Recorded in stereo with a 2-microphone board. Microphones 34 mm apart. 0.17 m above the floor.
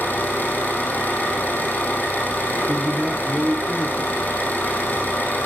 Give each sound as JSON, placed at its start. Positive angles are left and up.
{"t": 0.0, "sound": "an engine running", "side_deg": 65, "distance_m": 4.5}
{"t": 2.7, "sound": "a man speaking", "side_deg": -50, "distance_m": 2.5}